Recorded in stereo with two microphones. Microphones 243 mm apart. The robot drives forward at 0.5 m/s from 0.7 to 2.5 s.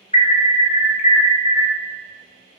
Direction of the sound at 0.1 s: 25° left (ahead or behind).